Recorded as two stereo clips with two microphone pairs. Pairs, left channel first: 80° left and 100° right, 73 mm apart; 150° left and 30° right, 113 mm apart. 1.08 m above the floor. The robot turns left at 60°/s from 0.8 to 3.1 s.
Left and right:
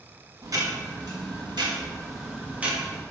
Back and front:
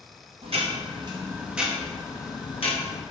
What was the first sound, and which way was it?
Ticking, 60° right.